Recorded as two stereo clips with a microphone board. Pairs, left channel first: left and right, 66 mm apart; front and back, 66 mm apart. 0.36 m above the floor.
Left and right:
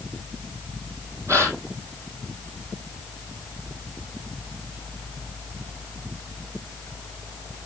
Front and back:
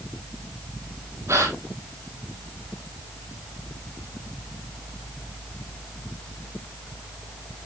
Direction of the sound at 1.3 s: 135° right.